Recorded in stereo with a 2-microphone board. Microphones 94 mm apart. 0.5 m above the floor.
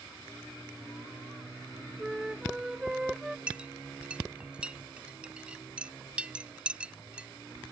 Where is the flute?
5° right (ahead or behind).